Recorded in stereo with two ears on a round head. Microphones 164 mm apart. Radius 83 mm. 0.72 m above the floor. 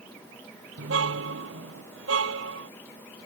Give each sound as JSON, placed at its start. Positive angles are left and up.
{"t": 0.8, "sound": "a car horn", "side_deg": -80}